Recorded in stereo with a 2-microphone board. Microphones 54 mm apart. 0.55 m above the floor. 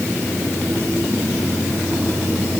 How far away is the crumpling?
No crumpling in this recording.